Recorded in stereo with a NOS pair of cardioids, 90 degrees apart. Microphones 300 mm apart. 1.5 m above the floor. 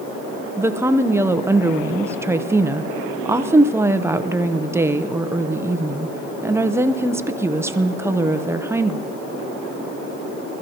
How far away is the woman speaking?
About 0.7 m.